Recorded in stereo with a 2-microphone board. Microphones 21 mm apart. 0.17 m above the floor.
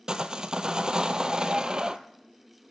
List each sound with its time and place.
0.1 s sawing: 35° right (ahead or behind), 0.7 m